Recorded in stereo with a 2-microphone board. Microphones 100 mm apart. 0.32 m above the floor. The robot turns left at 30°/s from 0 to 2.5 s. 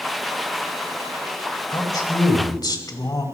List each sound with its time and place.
1.7 s a man speaking: 45° left (ahead or behind), 2 m